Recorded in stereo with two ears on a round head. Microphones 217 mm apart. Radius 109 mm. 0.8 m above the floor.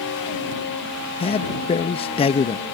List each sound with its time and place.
1.2 s a man speaking: 20° left (ahead or behind)